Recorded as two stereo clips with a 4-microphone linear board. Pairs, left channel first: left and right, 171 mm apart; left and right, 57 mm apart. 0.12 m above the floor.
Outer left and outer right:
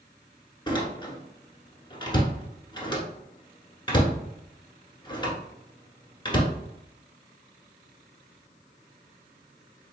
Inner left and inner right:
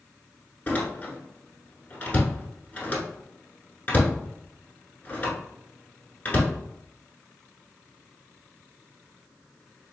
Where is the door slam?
25° left (ahead or behind), 1.1 m.